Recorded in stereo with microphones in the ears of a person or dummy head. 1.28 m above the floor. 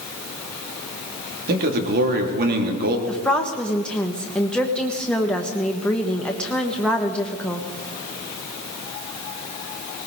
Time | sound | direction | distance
1.5 | a man speaking | 50° right (ahead or behind) | 2 m
3.1 | a woman speaking | 5° left (ahead or behind) | 1.3 m